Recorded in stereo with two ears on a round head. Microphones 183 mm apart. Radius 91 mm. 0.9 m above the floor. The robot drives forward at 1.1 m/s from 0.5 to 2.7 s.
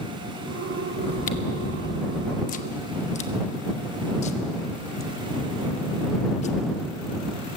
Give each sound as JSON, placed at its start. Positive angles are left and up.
{"t": 1.0, "sound": "chewing", "side_deg": 30, "distance_m": 1.2}